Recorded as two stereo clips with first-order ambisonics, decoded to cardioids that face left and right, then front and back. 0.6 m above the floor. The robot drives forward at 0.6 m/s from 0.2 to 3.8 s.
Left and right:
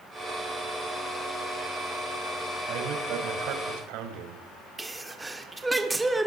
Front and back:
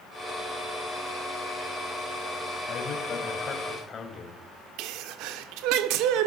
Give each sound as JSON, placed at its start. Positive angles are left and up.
{"t": 2.7, "sound": "a man speaking", "azimuth_deg": -55, "distance_m": 3.0}
{"t": 4.8, "sound": "a sneeze", "azimuth_deg": -175, "distance_m": 1.6}